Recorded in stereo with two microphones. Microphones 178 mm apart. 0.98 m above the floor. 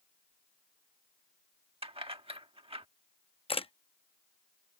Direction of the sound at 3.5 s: 30° left (ahead or behind).